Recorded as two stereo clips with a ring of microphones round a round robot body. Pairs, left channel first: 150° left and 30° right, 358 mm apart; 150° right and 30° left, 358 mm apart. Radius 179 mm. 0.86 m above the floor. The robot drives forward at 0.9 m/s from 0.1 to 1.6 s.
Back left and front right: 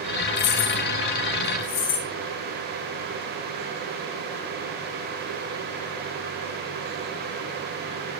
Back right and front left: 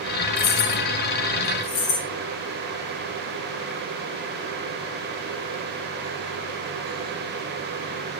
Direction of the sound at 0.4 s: 140° left.